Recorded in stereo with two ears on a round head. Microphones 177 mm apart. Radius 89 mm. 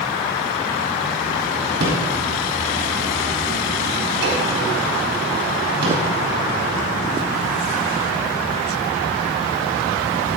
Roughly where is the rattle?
Right.